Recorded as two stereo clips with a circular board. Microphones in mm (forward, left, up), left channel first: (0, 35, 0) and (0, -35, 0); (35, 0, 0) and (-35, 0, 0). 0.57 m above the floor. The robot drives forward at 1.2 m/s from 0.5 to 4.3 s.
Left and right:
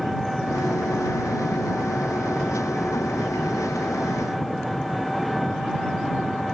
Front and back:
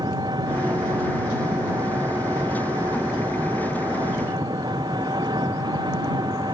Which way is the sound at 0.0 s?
Straight behind.